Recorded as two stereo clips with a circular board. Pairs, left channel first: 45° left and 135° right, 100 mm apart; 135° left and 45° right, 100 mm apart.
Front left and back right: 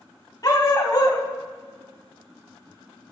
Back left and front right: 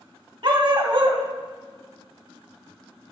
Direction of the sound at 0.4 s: 5° right.